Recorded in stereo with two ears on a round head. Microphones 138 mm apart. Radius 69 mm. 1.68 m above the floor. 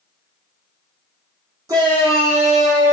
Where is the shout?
20° right (ahead or behind), 0.7 m; by 3.0 s 55° right (ahead or behind), 1.2 m.